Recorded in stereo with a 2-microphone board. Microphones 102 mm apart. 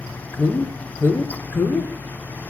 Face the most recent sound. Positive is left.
turn(degrees=20)  # may be behind; listen again after turning